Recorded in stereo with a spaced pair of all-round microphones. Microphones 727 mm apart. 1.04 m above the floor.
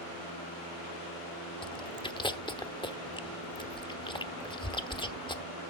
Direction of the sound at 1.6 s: 5° left (ahead or behind).